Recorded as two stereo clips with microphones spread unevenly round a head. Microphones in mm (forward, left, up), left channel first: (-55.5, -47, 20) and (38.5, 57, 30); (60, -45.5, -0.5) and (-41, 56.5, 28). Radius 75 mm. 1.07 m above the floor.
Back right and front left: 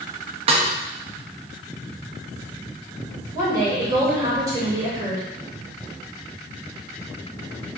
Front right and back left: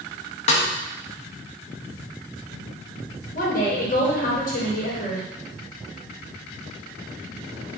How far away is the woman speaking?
About 3.5 m.